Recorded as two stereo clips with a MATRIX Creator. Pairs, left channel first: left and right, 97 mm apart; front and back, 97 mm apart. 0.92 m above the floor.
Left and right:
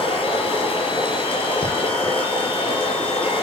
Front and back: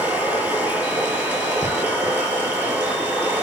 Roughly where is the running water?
Left.